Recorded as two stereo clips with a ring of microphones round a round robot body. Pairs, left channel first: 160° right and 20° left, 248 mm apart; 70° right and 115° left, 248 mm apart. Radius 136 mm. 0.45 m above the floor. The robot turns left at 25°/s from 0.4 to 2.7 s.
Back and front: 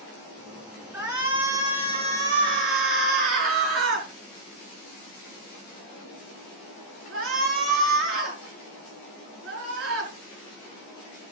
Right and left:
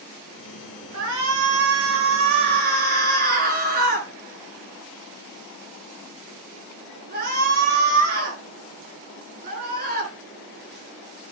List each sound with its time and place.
0.9 s a shout: 105° left, 6 m; by 10.1 s 60° left, 6 m